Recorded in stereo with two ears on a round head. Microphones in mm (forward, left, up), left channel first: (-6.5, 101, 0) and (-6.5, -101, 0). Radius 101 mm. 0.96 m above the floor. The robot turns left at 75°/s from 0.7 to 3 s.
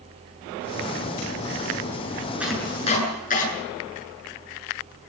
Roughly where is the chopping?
Centre.